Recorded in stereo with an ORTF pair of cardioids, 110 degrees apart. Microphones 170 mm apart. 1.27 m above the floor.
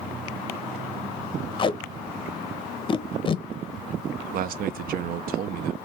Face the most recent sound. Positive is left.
turn(degrees=-60)